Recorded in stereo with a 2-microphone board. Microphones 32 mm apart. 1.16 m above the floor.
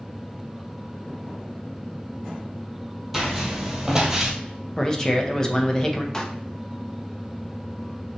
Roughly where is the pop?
Centre.